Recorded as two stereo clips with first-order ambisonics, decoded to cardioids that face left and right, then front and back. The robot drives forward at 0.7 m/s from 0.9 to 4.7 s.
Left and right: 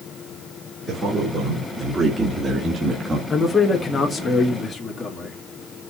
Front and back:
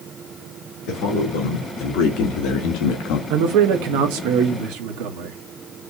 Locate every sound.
0.9 s a man speaking: 10° right, 2.5 m; by 3.2 s 25° right, 1.2 m
3.3 s a man speaking: 170° left, 1.2 m; by 5.4 s 175° left, 2 m